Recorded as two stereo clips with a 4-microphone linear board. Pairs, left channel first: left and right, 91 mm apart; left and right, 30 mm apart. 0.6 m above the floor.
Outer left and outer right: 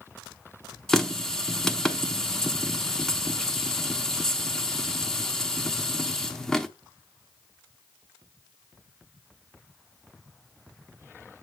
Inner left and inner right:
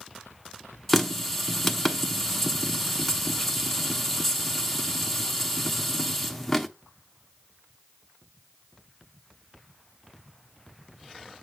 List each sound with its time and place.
0.9 s a running tap: 5° left (ahead or behind), 0.7 m